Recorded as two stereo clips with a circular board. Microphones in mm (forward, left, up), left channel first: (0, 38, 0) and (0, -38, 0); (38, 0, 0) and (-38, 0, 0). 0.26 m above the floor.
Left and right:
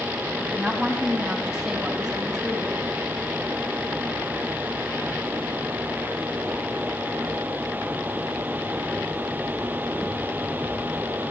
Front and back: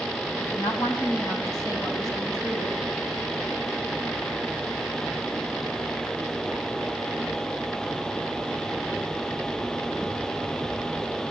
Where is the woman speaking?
15° right, 1.8 m; by 2.8 s 5° right, 3 m.